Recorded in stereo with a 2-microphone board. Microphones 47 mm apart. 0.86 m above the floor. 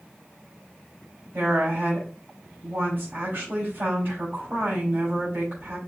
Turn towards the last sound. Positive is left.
turn(degrees=-45)  # may be behind; listen again after turning